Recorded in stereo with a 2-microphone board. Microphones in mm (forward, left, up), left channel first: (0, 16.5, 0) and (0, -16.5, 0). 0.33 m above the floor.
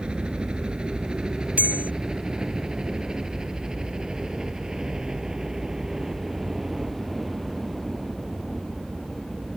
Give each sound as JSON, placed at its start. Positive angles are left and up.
{"t": 0.0, "sound": "a helicopter", "side_deg": -30}
{"t": 1.6, "sound": "a bell", "side_deg": -55}